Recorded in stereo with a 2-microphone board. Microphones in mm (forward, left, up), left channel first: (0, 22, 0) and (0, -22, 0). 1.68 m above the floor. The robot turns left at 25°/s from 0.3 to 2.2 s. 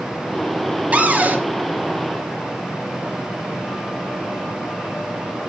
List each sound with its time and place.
0.9 s a cupboard door: 35° right (ahead or behind), 0.6 m; by 1.4 s 45° right (ahead or behind), 0.6 m